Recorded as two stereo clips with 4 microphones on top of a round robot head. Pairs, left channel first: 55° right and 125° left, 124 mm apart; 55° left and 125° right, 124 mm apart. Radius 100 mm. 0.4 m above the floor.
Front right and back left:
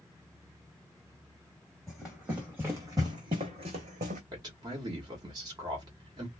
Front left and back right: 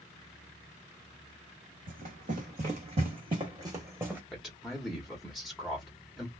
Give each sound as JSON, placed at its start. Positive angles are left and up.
{"t": 1.9, "sound": "running footsteps", "azimuth_deg": -140, "distance_m": 1.5}
{"t": 4.3, "sound": "a man speaking", "azimuth_deg": 140, "distance_m": 1.1}